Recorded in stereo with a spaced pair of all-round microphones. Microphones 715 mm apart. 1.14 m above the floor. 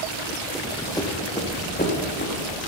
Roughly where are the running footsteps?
Centre.